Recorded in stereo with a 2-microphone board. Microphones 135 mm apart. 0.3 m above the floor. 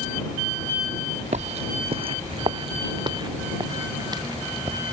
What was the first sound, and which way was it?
Footsteps, 60° right (ahead or behind).